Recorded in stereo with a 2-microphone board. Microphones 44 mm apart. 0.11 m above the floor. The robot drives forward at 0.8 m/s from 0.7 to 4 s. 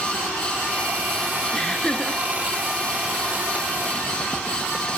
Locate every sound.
1.5 s laughter: 15° left (ahead or behind), 1.7 m